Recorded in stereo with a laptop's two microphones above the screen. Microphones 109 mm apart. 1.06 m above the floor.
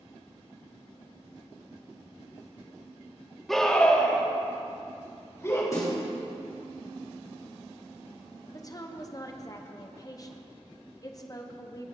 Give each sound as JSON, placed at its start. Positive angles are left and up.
{"t": 3.5, "sound": "a scream", "side_deg": 0, "distance_m": 1.9}
{"t": 5.7, "sound": "a snare drum", "side_deg": 30, "distance_m": 3.5}
{"t": 8.5, "sound": "a woman speaking", "side_deg": 30, "distance_m": 0.8}